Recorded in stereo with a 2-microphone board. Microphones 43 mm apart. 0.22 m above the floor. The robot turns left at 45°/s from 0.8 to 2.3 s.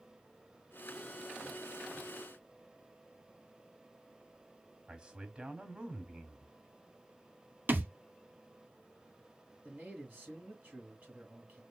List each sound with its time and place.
4.9 s a man speaking: 20° right (ahead or behind), 1.3 m
7.7 s a thud: 45° right (ahead or behind), 0.9 m
9.6 s a man speaking: 35° right (ahead or behind), 3 m